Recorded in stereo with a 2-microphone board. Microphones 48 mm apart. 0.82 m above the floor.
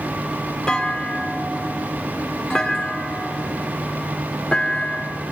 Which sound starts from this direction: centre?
A clunk, at 0.7 s.